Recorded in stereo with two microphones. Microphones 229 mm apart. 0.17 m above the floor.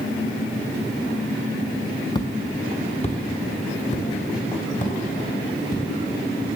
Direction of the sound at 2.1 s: 20° left (ahead or behind).